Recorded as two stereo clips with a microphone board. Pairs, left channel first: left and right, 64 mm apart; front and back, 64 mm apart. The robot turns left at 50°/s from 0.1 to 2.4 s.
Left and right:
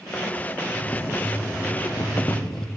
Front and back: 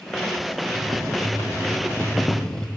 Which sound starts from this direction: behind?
Boiling, at 0.7 s.